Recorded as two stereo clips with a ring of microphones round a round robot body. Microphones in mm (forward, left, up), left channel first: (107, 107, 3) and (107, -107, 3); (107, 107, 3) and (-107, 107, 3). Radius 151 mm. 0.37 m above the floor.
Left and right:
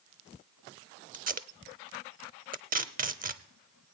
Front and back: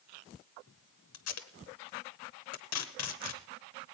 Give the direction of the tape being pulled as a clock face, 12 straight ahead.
1 o'clock.